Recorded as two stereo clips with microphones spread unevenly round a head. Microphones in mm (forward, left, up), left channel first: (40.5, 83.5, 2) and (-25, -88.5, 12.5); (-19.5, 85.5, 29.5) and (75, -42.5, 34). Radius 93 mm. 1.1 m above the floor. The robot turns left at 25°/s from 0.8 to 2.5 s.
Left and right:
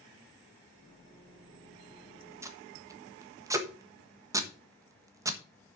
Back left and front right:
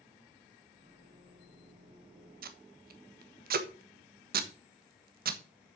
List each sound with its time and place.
2.4 s tape being pulled: 35° right, 1.3 m; by 5.8 s 40° right, 1.3 m